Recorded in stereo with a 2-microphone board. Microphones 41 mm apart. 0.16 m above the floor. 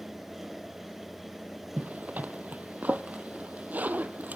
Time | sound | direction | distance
1.8 | a zipper | 45° right (ahead or behind) | 1.0 m